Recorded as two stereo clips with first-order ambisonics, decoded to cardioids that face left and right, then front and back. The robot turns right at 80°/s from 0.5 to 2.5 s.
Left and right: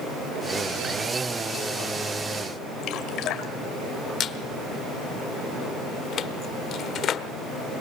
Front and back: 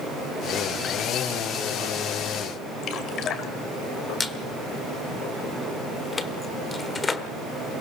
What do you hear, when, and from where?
2.8 s dripping: 50° left, 2 m
4.2 s a squeak: 65° left, 1.2 m